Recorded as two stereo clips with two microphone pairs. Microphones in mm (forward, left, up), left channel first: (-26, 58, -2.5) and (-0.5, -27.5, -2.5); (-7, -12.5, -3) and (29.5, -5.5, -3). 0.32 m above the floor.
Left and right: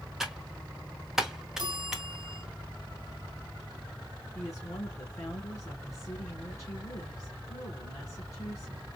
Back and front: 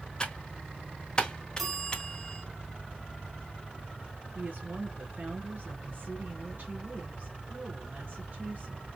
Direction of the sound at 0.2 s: 150° right.